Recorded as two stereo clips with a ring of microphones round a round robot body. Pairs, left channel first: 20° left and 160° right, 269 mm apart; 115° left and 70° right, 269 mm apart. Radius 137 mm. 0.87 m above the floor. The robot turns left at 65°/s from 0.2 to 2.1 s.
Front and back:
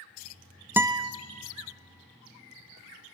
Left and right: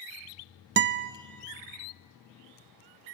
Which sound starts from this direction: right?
A guitar, at 0.8 s.